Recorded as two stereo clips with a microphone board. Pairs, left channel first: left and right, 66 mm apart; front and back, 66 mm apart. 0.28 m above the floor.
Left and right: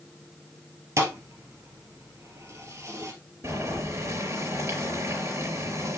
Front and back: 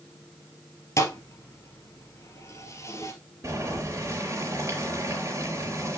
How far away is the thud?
About 2 m.